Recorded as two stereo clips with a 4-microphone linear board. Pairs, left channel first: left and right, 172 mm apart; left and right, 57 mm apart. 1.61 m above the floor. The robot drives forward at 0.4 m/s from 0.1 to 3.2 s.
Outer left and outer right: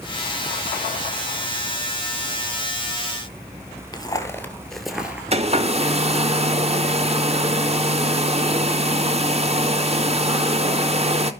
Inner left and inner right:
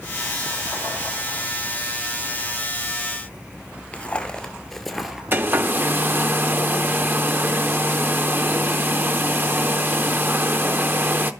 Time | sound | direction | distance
3.9 | footsteps | 20° left (ahead or behind) | 1.7 m
5.3 | a hair dryer | 40° right (ahead or behind) | 0.8 m